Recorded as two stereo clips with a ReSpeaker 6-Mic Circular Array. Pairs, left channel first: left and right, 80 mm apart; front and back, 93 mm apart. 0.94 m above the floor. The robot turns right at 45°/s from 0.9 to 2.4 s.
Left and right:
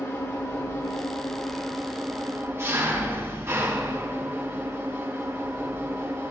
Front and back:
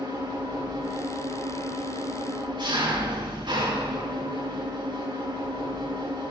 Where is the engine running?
145° left, 3.5 m; by 6.3 s 145° right, 3.5 m.